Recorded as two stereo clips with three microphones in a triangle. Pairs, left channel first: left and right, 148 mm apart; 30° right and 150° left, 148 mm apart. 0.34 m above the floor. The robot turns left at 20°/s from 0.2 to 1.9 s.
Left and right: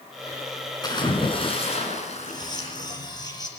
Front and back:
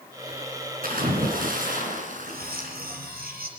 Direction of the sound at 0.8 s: 150° left.